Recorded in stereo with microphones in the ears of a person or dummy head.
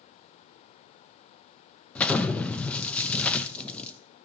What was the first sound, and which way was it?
An explosion, 10° left (ahead or behind).